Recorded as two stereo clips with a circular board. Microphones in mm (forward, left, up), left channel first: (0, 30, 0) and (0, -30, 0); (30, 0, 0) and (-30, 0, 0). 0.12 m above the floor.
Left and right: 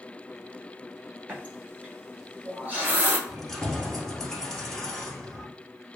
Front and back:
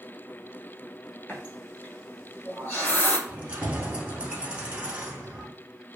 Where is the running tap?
45° right, 1.2 m.